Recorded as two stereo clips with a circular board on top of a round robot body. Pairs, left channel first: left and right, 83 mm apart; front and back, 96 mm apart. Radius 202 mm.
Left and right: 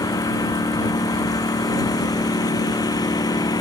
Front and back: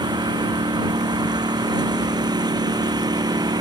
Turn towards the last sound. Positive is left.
turn(degrees=135)